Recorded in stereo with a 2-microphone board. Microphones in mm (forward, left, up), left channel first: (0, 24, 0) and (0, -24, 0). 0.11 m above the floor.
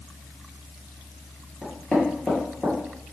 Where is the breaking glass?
No breaking glass in this recording.